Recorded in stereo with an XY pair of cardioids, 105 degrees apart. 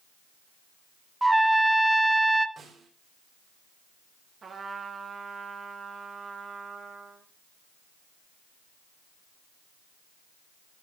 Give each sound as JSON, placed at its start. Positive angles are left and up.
{"t": 1.2, "sound": "a trumpet", "azimuth_deg": -10, "distance_m": 0.8}
{"t": 2.6, "sound": "a snare drum", "azimuth_deg": -45, "distance_m": 5.0}
{"t": 4.4, "sound": "a trumpet", "azimuth_deg": -40, "distance_m": 2.5}